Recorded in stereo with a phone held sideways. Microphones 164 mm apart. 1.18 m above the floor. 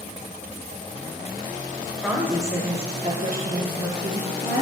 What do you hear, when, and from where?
2.0 s a woman speaking: 5° right (ahead or behind), 0.7 m; by 4.6 s 75° right (ahead or behind), 1.1 m